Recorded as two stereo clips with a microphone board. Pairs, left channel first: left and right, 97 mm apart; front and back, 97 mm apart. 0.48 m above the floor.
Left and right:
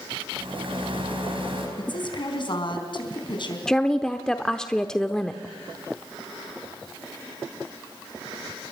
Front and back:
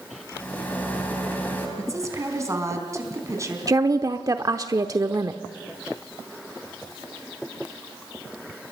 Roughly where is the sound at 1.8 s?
Behind left.